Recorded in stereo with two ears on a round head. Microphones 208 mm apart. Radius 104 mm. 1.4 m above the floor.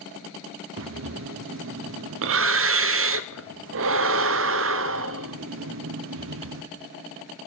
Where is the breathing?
60° right (ahead or behind), 0.6 m.